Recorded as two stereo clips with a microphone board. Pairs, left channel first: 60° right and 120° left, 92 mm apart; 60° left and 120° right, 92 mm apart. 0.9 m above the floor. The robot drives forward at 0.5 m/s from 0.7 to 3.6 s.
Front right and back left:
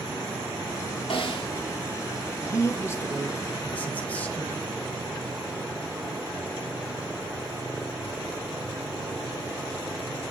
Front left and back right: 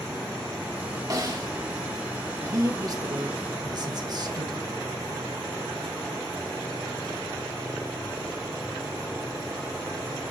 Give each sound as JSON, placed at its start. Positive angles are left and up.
{"t": 1.1, "sound": "a snare drum", "azimuth_deg": -70, "distance_m": 1.8}
{"t": 2.4, "sound": "a man speaking", "azimuth_deg": -90, "distance_m": 1.2}